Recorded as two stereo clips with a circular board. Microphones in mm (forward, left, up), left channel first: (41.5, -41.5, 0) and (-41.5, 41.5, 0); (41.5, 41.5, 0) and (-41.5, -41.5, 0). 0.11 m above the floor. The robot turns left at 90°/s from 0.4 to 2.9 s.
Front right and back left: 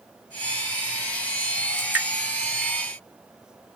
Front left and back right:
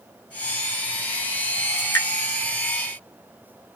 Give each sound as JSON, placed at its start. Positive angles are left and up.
{"t": 1.8, "sound": "dripping", "azimuth_deg": 95, "distance_m": 1.3}